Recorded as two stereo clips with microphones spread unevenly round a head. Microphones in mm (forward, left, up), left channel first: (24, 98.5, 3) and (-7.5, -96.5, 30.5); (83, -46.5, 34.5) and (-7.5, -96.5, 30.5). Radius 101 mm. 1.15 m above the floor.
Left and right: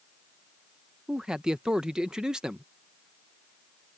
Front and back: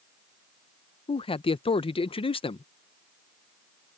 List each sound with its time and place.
1.1 s a man speaking: 10° right